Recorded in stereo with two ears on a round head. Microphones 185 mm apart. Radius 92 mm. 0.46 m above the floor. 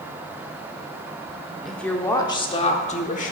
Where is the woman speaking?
Centre (ahead or behind), 0.9 m; by 3.3 s 40° left (ahead or behind), 1.2 m.